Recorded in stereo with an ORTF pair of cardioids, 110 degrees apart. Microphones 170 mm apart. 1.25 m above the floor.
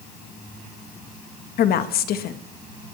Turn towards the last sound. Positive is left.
turn(degrees=65)